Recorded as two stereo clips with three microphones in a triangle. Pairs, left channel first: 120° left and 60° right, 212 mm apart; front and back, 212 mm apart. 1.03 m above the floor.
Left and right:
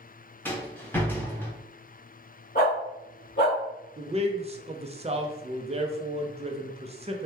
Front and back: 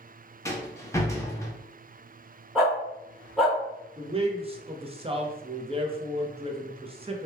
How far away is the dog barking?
About 1.2 m.